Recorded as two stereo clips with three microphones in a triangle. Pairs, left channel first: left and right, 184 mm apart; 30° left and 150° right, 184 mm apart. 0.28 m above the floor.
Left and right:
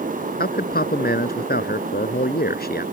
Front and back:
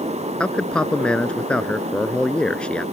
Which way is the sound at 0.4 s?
115° left.